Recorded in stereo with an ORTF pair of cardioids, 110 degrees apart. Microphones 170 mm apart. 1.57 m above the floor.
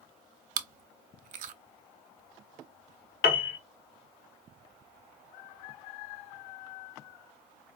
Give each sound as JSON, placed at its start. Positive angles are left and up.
{"t": 0.6, "sound": "chewing", "azimuth_deg": -60, "distance_m": 0.7}
{"t": 3.2, "sound": "a piano", "azimuth_deg": 70, "distance_m": 1.1}